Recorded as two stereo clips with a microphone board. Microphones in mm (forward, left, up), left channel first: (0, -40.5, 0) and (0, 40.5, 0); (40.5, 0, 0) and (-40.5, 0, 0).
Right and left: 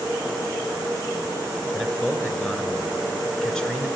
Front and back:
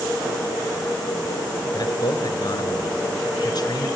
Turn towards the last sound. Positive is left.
turn(degrees=-10)